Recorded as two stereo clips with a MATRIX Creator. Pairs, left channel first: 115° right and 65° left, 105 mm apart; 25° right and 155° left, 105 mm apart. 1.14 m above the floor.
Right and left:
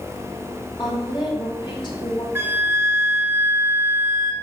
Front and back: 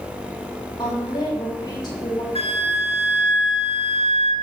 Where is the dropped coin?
I don't hear a dropped coin.